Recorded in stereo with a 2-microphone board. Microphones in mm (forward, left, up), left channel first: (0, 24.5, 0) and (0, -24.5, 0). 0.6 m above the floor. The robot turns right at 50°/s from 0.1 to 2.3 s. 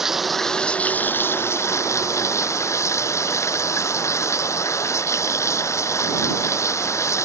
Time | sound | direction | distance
0.0 | running water | 10° right | ?